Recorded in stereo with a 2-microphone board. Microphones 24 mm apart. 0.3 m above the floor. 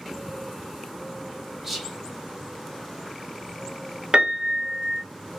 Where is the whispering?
15° right (ahead or behind), 1.0 m.